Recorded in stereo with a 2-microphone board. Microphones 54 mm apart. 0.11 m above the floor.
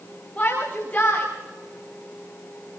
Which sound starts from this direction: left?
A shout, at 0.4 s.